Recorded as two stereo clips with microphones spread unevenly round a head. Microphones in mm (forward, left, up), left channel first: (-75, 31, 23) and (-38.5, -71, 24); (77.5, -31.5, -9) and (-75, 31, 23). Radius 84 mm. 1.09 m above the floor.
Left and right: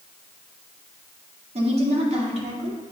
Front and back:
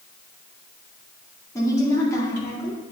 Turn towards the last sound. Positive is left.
turn(degrees=-95)